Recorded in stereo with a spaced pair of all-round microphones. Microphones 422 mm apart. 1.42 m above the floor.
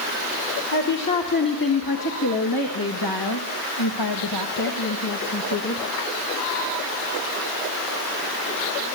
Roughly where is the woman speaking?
Left.